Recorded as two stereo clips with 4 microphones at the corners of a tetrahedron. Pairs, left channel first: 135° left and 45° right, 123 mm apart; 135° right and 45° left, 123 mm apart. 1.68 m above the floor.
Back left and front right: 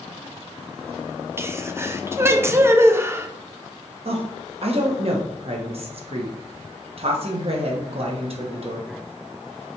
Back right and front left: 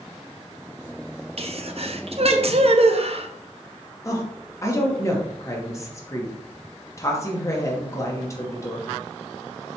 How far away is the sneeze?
About 0.6 m.